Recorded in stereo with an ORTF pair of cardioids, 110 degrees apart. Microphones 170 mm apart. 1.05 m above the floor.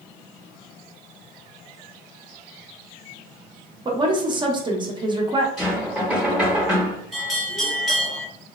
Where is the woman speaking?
25° right, 0.8 m.